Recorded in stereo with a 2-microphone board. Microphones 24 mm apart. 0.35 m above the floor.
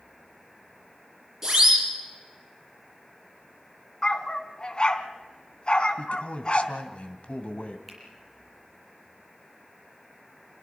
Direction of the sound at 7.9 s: 5° right (ahead or behind).